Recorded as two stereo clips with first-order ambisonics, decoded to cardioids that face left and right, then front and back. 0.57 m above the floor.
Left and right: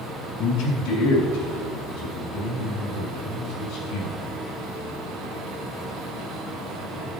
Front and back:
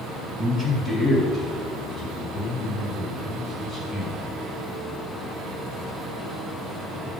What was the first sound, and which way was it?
A man speaking, 95° left.